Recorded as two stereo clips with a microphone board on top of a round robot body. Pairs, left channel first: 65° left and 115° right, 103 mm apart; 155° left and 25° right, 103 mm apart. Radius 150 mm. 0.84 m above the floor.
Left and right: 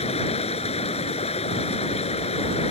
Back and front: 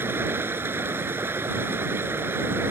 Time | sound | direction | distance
0.0 | running water | 45° left | ?